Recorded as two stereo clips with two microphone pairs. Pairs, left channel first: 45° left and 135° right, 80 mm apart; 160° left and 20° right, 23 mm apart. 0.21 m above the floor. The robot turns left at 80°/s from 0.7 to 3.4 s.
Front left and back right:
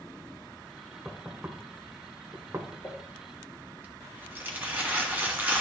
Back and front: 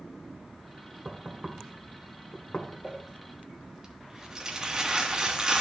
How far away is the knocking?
About 1.1 m.